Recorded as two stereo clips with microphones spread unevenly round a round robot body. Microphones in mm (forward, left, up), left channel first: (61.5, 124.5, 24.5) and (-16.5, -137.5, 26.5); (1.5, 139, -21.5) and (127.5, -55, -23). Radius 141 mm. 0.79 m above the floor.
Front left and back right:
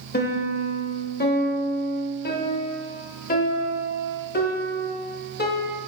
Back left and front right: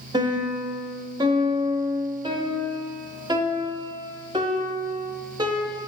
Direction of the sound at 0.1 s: 15° left.